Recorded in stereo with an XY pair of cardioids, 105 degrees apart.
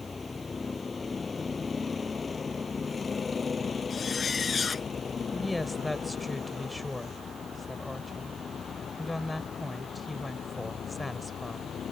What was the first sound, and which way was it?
A vehicle, 25° left.